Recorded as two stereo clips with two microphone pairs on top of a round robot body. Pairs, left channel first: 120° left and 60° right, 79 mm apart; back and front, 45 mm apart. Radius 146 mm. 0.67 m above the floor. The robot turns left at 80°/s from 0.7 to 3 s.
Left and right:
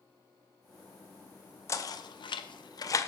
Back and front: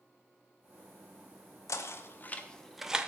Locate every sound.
1.7 s knocking: 170° left, 0.6 m; by 3.1 s 65° left, 0.6 m